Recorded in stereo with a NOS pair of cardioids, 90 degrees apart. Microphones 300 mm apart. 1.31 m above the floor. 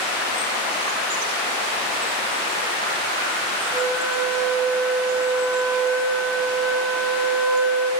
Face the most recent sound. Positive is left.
turn(degrees=0)